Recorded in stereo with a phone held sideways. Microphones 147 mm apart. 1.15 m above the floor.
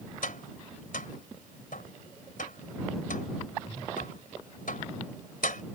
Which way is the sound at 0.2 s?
80° left.